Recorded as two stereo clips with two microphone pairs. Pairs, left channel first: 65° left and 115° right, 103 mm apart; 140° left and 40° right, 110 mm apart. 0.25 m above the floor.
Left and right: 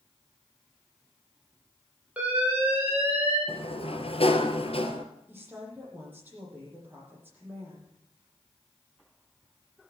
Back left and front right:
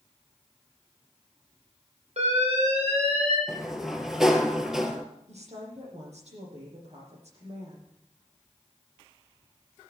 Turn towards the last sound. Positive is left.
turn(degrees=-40)